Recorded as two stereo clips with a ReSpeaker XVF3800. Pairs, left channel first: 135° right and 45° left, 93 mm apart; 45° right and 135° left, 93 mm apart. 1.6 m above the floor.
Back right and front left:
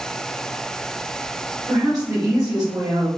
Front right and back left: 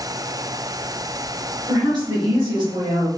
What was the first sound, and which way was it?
A woman speaking, 95° left.